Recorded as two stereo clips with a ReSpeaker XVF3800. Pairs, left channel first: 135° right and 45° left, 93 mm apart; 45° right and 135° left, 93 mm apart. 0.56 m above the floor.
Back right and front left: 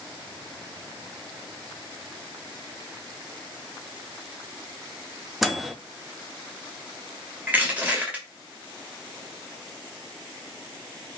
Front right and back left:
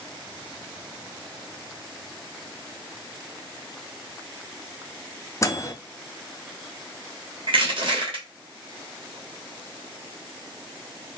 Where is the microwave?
45° right, 0.5 m.